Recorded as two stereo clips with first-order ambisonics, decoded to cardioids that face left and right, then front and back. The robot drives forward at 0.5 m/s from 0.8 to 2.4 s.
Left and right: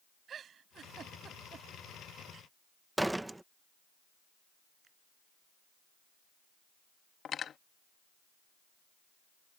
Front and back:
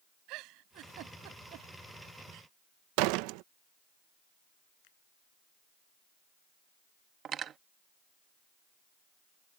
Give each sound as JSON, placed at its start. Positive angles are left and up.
{"t": 0.3, "sound": "a giggle", "azimuth_deg": -155}
{"t": 3.0, "sound": "a door slam", "azimuth_deg": -175}
{"t": 4.8, "sound": "a finger snap", "azimuth_deg": -20}
{"t": 7.2, "sound": "cutlery clinking", "azimuth_deg": 140}